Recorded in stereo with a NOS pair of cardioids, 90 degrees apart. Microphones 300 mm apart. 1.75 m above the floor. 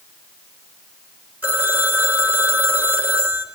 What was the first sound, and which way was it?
A phone ringing, 5° right.